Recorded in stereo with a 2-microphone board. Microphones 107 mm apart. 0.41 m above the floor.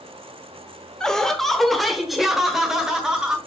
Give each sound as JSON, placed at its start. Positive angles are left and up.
{"t": 1.0, "sound": "laughter", "side_deg": 5, "distance_m": 1.0}